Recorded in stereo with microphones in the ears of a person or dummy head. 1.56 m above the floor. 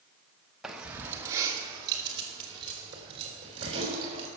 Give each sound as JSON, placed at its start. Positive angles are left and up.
{"t": 0.6, "sound": "keys jangling", "side_deg": -5, "distance_m": 1.0}